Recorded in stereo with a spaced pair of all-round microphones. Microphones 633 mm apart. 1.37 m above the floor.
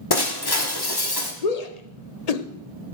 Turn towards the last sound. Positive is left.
turn(degrees=75)  # may be behind; listen again after turning